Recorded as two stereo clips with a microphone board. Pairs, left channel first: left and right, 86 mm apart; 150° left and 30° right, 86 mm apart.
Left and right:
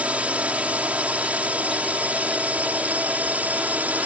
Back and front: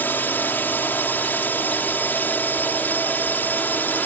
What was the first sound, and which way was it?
A drone, 155° right.